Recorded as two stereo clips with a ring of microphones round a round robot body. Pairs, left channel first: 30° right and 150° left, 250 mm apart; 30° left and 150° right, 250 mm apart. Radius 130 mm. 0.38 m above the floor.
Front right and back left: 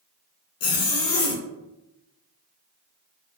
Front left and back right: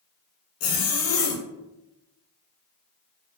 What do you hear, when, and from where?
0.6 s a zipper: straight ahead, 0.6 m